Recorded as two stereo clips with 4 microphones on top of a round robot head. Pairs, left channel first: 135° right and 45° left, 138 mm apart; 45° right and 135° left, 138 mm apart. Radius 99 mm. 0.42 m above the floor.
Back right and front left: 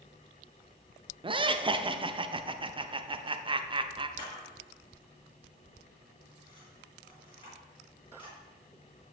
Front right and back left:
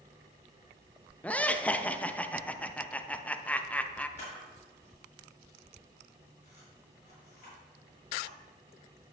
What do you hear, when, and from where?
1.2 s laughter: 30° left, 1.1 m
4.2 s a camera shutter: 80° right, 5.5 m